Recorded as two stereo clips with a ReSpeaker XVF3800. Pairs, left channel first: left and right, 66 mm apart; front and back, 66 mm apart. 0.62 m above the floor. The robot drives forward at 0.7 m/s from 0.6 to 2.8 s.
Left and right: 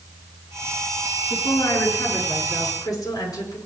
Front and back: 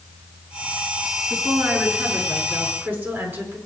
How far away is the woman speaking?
About 6.5 m.